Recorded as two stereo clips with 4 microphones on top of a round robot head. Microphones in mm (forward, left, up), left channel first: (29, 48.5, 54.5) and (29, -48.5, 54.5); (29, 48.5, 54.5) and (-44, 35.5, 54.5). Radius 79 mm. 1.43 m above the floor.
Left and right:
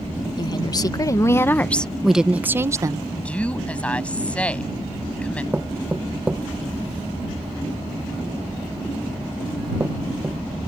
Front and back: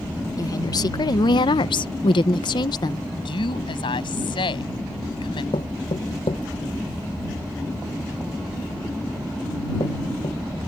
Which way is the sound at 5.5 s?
15° right.